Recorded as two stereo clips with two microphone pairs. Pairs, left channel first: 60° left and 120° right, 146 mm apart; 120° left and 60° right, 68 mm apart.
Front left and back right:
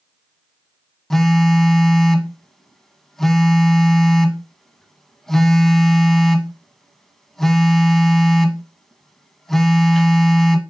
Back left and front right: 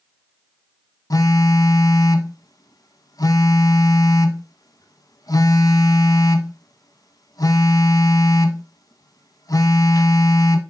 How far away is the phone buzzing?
About 0.6 m.